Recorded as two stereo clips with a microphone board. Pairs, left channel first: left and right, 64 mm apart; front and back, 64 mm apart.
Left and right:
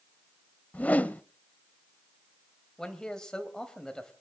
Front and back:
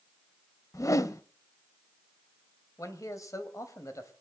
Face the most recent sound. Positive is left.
turn(degrees=15)